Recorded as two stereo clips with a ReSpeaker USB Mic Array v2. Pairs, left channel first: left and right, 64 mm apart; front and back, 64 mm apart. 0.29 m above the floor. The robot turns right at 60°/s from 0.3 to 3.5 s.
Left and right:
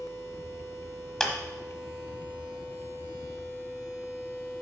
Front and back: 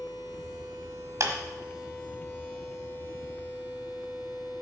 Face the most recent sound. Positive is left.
turn(degrees=-50)